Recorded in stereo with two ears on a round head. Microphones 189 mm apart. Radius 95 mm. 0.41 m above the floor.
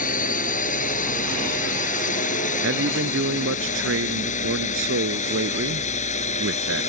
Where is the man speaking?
65° right (ahead or behind).